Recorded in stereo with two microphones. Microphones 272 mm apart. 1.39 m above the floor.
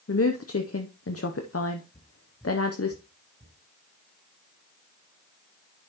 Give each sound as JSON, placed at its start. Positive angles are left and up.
{"t": 0.1, "sound": "a woman speaking", "side_deg": 55, "distance_m": 0.8}
{"t": 1.9, "sound": "footsteps", "side_deg": 25, "distance_m": 1.4}